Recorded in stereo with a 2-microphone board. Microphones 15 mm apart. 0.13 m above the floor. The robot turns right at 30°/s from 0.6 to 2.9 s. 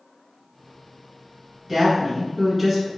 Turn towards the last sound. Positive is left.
turn(degrees=-20)